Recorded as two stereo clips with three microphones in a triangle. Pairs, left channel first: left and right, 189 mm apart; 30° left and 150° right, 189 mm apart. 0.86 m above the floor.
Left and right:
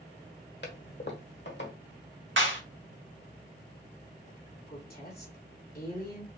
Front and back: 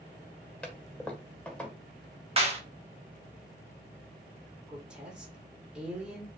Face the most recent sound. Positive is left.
turn(degrees=125)